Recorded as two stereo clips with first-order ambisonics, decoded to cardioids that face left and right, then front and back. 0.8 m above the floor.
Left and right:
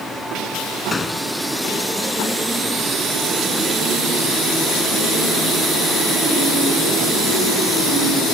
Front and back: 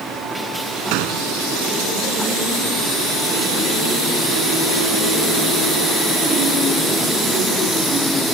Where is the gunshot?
165° left.